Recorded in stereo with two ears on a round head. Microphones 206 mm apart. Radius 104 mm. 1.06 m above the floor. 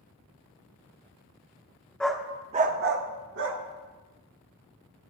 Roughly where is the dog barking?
Centre.